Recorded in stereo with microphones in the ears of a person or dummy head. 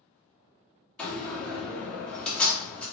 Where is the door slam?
5° left (ahead or behind), 1.4 m.